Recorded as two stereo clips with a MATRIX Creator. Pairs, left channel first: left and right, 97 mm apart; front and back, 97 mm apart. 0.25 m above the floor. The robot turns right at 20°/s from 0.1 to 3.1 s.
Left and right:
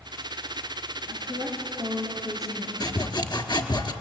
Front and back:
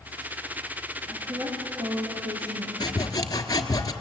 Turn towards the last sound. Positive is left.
turn(degrees=50)